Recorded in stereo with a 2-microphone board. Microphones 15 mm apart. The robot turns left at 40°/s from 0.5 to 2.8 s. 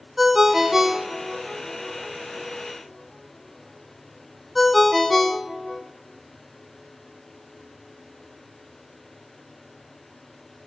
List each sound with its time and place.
0.2 s a ringtone: 20° right (ahead or behind), 0.9 m; by 5.8 s centre (ahead or behind), 0.9 m